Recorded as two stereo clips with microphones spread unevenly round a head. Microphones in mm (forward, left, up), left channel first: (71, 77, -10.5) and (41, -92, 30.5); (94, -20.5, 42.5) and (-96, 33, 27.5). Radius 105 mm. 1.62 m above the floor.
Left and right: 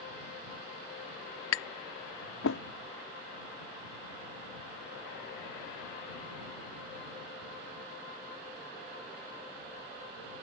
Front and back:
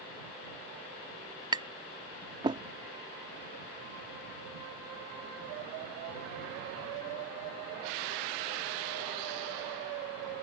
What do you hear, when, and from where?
1.5 s tapping: 95° left